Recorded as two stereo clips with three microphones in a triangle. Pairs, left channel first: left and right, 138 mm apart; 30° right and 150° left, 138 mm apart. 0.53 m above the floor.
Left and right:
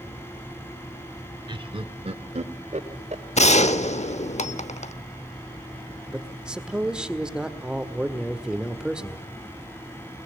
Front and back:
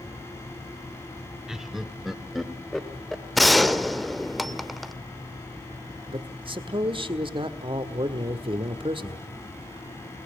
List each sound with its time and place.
1.5 s laughter: 125° right, 1.0 m; by 3.2 s 120° right, 2.0 m
3.4 s a gunshot: 60° left, 0.8 m
6.1 s a man speaking: 175° right, 1.5 m